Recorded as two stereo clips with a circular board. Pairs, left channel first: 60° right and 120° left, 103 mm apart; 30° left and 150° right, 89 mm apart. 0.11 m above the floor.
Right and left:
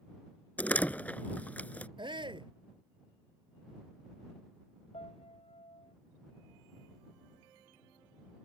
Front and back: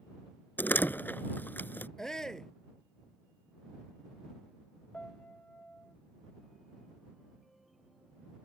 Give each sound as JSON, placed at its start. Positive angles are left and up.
{"t": 0.6, "sound": "a door slam", "azimuth_deg": -5}
{"t": 2.0, "sound": "a shout", "azimuth_deg": 110}
{"t": 4.9, "sound": "a piano", "azimuth_deg": -50}